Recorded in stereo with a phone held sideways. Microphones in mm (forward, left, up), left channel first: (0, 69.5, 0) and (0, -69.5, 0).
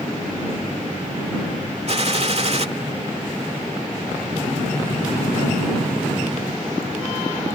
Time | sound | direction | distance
1.9 | a gunshot | 50° right (ahead or behind) | ?